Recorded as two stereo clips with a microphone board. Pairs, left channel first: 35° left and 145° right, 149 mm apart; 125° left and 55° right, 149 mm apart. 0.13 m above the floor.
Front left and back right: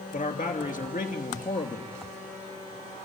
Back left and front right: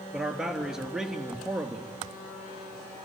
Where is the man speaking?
30° left, 3 m.